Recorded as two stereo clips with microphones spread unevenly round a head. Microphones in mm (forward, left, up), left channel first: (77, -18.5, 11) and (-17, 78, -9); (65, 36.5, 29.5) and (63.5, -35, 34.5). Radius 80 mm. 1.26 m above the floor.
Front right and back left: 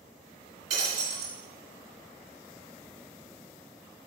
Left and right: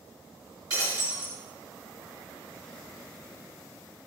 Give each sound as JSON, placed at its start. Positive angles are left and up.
{"t": 0.7, "sound": "breaking glass", "azimuth_deg": -155, "distance_m": 3.0}